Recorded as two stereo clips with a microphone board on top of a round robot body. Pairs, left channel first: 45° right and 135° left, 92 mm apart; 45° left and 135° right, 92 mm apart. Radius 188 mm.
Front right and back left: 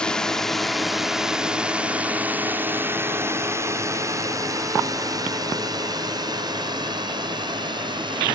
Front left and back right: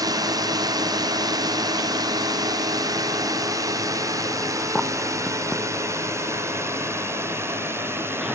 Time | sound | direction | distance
0.0 | a drone | 120° right | ?